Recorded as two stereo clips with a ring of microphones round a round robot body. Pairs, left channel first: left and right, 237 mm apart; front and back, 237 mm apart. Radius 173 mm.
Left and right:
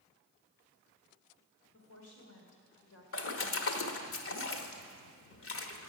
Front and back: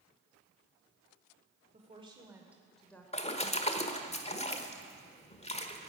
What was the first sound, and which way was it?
A woman speaking, 120° left.